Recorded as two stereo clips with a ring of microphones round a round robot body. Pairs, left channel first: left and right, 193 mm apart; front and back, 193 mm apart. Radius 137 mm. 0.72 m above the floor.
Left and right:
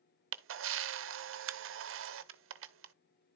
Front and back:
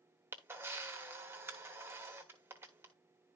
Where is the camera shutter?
100° right, 0.9 m.